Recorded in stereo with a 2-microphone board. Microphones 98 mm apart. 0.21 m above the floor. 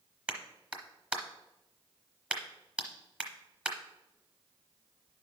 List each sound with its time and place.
0.3 s a clap: 10° right (ahead or behind), 1.0 m